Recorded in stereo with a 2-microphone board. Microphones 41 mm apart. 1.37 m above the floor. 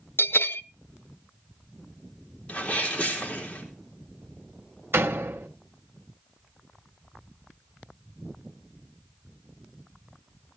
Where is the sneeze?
30° left (ahead or behind), 3.5 m.